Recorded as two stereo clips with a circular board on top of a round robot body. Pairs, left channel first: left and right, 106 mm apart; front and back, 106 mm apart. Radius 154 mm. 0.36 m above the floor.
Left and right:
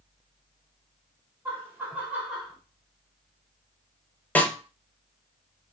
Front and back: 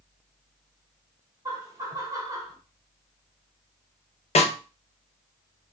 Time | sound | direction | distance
1.4 | laughter | 145° right | 1.7 m
4.3 | a snare drum | 15° left | 0.7 m